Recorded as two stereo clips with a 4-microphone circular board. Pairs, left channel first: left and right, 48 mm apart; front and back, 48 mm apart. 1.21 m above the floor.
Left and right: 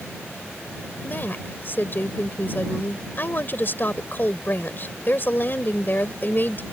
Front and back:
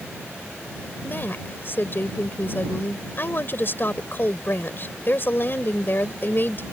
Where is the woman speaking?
45° left.